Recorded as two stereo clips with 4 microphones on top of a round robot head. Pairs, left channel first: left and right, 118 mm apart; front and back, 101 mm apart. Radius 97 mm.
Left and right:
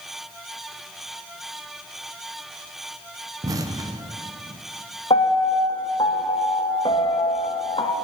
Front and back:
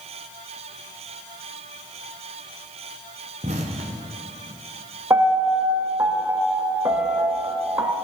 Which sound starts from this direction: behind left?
A piano, at 5.1 s.